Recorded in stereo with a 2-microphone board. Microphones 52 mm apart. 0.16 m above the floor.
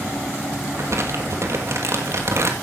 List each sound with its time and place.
0.7 s crumpling: 65° right (ahead or behind), 2 m